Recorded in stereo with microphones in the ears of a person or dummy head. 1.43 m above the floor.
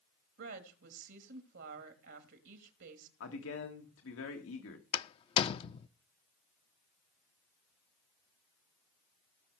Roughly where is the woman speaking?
Right.